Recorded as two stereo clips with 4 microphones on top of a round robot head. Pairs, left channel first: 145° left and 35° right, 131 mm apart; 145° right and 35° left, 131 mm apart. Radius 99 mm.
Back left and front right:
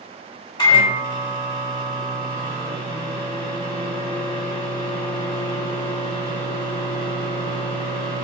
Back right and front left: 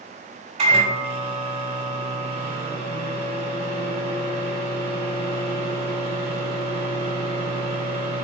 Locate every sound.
0.6 s a microwave: 85° left, 1.7 m